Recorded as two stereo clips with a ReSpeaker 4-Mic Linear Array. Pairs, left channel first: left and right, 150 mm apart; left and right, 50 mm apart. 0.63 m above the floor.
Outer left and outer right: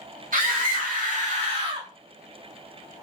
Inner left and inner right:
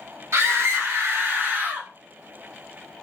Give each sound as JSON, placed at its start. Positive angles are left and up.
{"t": 0.3, "sound": "a scream", "side_deg": -65, "distance_m": 2.0}